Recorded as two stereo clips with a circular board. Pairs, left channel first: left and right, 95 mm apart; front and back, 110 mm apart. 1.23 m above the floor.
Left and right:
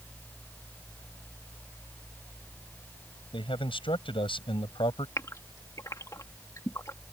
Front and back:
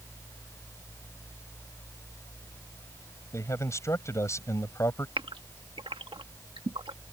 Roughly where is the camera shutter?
I don't hear a camera shutter.